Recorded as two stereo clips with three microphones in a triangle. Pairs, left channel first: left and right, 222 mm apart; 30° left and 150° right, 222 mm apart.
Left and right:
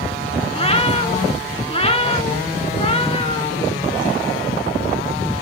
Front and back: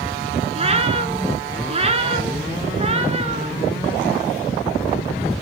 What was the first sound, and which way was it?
A cat meowing, 155° left.